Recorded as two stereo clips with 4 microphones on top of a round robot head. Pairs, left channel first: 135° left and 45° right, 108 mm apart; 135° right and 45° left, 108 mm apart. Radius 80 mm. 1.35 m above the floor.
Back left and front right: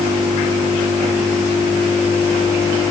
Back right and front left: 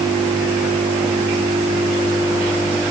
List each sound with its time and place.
Only background noise.